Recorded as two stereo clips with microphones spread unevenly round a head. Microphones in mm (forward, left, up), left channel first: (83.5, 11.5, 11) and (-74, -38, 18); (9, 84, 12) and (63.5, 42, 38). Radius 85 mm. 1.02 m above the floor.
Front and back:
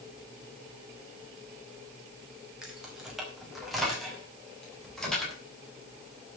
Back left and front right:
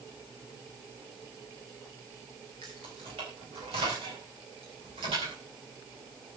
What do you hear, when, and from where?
2.6 s keys jangling: 75° right, 4.5 m; by 5.3 s 70° right, 7 m